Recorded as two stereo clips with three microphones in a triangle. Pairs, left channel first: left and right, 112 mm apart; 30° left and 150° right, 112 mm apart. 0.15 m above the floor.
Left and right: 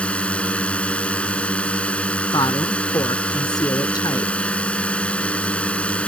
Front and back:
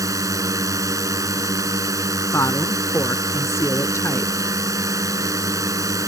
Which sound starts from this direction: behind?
A drone, at 0.0 s.